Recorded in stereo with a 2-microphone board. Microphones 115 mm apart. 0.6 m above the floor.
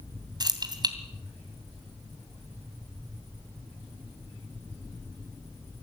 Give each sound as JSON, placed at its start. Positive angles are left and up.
{"t": 0.4, "sound": "keys jangling", "side_deg": -35, "distance_m": 2.5}